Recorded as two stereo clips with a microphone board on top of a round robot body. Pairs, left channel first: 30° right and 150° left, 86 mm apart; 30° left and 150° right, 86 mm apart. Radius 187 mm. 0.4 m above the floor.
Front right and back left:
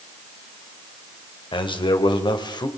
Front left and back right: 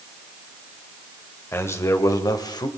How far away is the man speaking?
About 2.5 m.